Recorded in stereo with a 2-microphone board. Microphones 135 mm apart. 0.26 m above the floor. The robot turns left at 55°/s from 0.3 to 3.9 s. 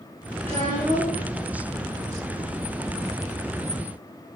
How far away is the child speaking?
About 4 m.